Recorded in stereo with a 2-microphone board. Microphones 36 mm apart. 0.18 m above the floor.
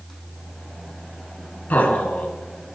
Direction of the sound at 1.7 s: 50° left (ahead or behind).